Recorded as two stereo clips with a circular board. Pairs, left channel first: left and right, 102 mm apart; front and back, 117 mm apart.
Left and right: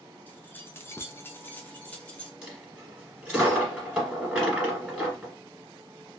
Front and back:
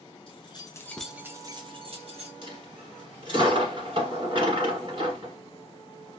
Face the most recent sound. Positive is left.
turn(degrees=-165)